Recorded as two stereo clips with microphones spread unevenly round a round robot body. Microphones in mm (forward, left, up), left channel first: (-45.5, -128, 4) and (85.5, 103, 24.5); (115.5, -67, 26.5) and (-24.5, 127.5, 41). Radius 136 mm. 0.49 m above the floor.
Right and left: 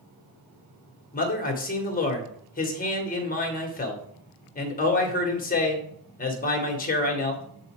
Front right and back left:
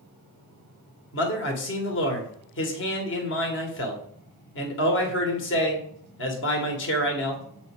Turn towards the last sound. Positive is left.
turn(degrees=-70)